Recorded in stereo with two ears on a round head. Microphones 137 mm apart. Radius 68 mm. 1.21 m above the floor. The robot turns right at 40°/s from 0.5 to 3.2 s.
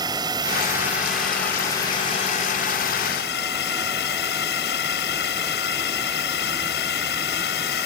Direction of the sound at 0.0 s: 25° right.